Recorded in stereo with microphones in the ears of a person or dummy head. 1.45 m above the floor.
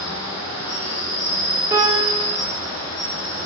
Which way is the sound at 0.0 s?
55° left (ahead or behind).